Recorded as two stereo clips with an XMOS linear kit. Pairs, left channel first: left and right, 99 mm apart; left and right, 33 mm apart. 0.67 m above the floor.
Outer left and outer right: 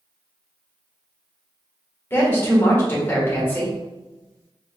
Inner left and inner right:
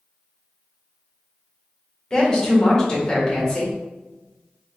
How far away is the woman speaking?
About 1.7 m.